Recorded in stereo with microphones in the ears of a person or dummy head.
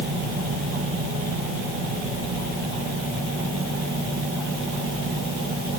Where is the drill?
No drill in this recording.